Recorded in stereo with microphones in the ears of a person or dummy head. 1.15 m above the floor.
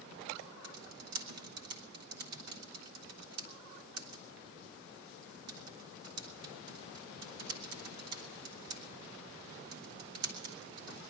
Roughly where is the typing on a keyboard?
Right.